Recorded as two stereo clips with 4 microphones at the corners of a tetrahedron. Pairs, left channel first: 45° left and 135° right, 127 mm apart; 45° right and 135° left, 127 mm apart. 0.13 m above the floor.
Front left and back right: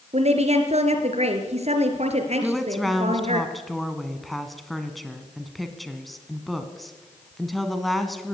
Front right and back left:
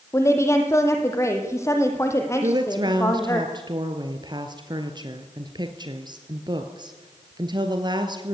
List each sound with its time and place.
0.1 s a woman speaking: 110° right, 3 m
2.4 s a woman speaking: 135° left, 1.7 m